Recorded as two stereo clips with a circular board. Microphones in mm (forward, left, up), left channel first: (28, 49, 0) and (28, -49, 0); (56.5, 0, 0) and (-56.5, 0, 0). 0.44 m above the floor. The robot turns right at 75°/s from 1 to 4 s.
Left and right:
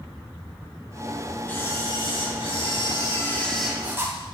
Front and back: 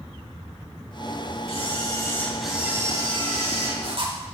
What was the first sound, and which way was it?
A camera shutter, 20° left.